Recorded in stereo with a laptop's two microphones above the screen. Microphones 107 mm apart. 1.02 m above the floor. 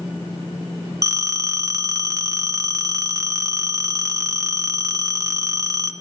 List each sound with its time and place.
1.0 s a phone ringing: 30° right (ahead or behind), 0.5 m